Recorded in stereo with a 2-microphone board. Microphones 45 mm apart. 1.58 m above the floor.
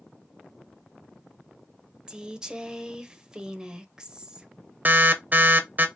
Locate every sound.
2.1 s a woman speaking: 20° right (ahead or behind), 0.7 m
4.8 s an alarm: 45° right (ahead or behind), 0.6 m